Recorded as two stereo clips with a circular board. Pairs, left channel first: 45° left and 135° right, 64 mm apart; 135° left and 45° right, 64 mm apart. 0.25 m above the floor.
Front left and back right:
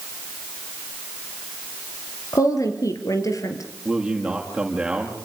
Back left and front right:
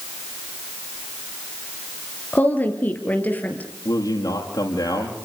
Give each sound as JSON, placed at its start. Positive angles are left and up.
{"t": 2.3, "sound": "a woman speaking", "azimuth_deg": 75, "distance_m": 5.0}
{"t": 3.9, "sound": "a man speaking", "azimuth_deg": 145, "distance_m": 8.0}